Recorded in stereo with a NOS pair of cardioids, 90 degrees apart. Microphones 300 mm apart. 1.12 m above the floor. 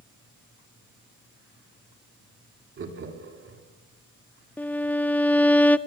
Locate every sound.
2.8 s laughter: 45° right, 3.5 m
4.6 s a violin: 5° left, 0.6 m